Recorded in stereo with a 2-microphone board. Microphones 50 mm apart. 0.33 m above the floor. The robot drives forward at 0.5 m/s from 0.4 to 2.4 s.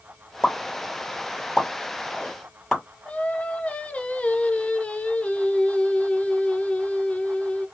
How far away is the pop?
About 1.0 m.